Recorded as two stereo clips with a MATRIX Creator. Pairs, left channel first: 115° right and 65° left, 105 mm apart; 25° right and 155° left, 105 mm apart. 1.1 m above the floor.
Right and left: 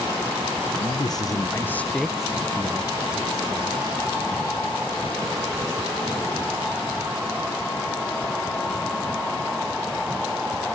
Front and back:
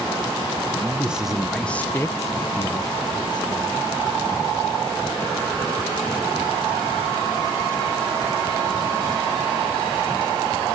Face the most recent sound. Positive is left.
turn(degrees=20)